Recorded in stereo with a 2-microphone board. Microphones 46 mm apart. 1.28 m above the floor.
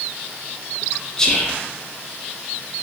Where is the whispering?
15° left (ahead or behind), 0.5 m.